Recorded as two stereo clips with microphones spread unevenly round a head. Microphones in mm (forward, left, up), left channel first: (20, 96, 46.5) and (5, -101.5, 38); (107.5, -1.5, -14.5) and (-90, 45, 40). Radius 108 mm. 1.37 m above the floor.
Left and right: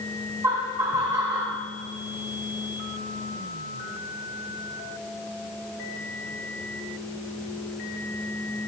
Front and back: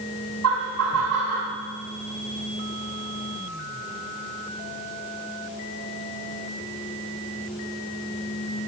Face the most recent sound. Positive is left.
turn(degrees=-170)